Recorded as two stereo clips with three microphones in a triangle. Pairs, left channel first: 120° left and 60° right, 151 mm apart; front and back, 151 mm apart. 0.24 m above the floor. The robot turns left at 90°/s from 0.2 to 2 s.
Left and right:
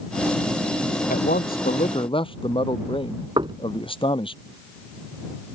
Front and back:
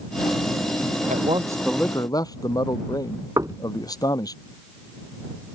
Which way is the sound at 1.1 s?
145° left.